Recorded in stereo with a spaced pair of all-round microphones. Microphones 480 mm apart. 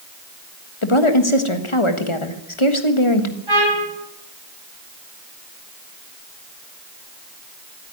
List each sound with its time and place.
0.8 s a woman speaking: 85° left, 1.5 m
3.5 s a trumpet: 85° right, 9 m